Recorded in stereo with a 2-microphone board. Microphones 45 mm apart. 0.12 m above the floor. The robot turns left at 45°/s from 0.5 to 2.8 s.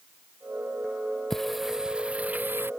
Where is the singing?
10° left; by 2.7 s 55° right.